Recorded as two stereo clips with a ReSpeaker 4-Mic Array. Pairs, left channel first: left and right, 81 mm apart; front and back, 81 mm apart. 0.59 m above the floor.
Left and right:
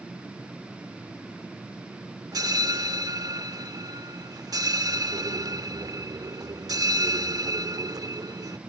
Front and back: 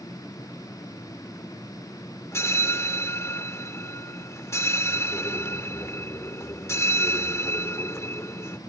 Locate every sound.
2.3 s a bell: 55° right